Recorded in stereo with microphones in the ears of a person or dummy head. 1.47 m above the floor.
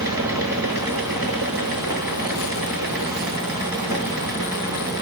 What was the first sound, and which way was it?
A fan, 20° right (ahead or behind).